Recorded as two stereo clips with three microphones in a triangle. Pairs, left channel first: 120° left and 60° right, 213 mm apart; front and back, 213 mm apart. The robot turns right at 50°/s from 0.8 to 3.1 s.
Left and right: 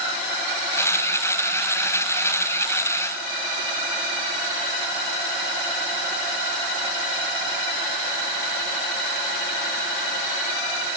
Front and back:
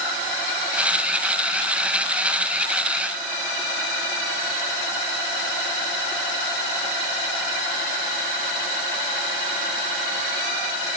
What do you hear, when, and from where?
Only background noise.